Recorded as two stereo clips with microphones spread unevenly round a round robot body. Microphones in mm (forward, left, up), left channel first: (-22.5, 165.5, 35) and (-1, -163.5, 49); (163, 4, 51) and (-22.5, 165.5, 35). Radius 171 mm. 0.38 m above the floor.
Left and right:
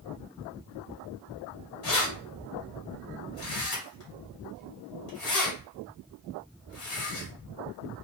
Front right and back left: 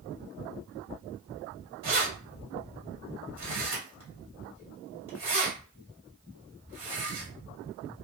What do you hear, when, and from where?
1.8 s keys jangling: 135° left, 1.7 m